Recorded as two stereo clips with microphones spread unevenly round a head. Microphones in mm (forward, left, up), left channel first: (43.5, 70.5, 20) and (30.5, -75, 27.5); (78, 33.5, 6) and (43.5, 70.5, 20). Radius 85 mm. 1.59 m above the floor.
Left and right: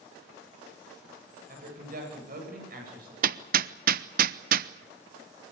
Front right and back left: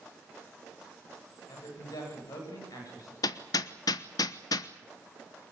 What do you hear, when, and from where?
1.5 s a woman speaking: 65° right, 8.5 m; by 3.1 s 70° right, 9 m
3.2 s hammering: 75° right, 0.8 m